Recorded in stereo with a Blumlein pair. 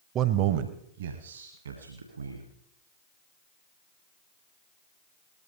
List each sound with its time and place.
0.1 s a man speaking: 30° right, 0.8 m; by 2.5 s 75° right, 2.5 m